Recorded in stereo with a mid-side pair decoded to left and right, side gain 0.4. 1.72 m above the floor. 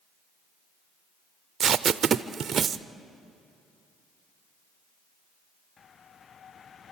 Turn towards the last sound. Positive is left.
turn(degrees=-55)